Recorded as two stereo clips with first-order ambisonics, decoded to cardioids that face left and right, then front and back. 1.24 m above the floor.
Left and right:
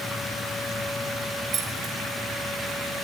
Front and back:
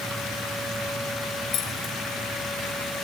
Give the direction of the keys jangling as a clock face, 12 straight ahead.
1 o'clock.